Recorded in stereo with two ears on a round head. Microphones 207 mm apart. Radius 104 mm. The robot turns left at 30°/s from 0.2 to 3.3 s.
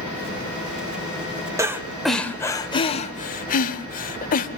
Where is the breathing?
15° right (ahead or behind), 1.3 m; by 4.5 s 35° left (ahead or behind), 1.3 m.